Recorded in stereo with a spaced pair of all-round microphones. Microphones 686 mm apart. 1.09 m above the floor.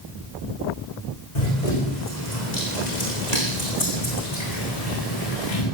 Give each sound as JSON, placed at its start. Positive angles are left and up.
{"t": 1.4, "sound": "running footsteps", "side_deg": 75, "distance_m": 5.5}